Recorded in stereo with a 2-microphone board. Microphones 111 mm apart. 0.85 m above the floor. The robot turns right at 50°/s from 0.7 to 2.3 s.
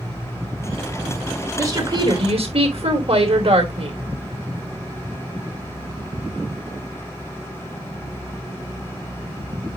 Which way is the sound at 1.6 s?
155° right.